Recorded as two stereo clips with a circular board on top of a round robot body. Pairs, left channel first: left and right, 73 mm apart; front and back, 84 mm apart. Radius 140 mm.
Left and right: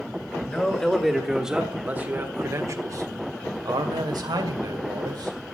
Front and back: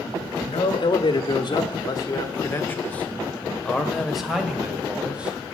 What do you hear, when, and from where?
0.5 s a man speaking: 15° left, 2 m; by 5.3 s 105° right, 3.5 m